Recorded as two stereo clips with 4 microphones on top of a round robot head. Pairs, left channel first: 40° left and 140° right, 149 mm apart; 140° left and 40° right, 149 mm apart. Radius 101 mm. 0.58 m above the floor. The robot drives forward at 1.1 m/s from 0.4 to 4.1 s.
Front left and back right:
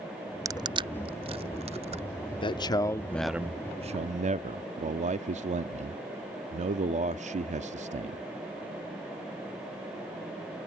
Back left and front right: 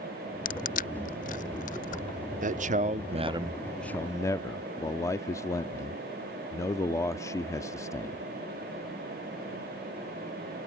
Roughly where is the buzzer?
I don't hear a buzzer.